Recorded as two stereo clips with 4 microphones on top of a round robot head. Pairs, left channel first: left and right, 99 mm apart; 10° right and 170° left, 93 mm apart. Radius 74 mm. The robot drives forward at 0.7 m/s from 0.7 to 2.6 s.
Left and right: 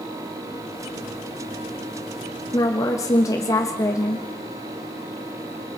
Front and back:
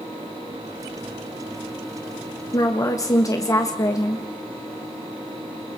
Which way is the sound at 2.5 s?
35° left.